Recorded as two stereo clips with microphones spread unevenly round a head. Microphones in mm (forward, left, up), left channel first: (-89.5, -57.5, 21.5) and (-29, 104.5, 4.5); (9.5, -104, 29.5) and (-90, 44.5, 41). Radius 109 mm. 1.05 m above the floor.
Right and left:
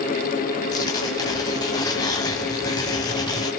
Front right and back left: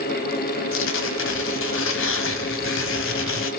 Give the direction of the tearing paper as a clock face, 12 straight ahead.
1 o'clock.